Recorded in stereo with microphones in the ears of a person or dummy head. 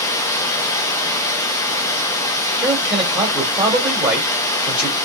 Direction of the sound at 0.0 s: 15° left (ahead or behind).